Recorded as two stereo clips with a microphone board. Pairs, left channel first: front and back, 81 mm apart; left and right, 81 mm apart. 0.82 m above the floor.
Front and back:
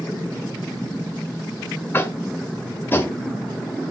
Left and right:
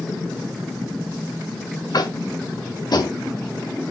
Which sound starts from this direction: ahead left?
Tapping, at 1.9 s.